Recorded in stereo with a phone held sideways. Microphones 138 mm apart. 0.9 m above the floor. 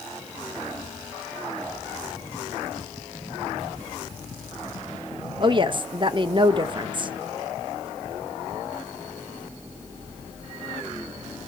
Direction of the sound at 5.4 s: 35° right (ahead or behind).